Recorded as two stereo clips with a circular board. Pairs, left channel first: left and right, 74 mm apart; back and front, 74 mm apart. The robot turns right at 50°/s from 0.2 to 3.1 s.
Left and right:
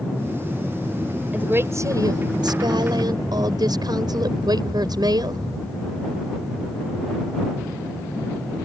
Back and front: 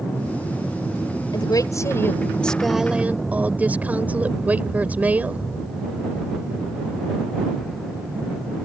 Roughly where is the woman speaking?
Behind.